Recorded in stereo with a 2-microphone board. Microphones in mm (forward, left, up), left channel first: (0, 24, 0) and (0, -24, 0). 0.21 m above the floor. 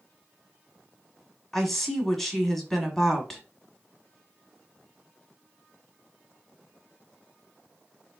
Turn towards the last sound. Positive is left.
turn(degrees=5)  # may be behind; listen again after turning